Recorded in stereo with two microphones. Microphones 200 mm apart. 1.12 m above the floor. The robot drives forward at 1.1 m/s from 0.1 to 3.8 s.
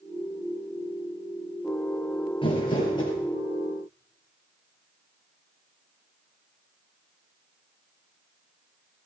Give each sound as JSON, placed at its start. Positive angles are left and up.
{"t": 2.4, "sound": "crumpling", "side_deg": 25, "distance_m": 3.5}